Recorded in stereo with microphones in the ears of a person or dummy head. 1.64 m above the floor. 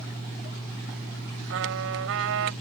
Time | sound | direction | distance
1.5 | a trumpet | 75° right (ahead or behind) | ?